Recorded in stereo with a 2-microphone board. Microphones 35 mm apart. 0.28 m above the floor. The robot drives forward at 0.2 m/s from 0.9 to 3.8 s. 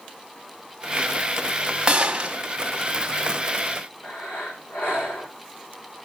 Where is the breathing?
90° left, 4.5 m.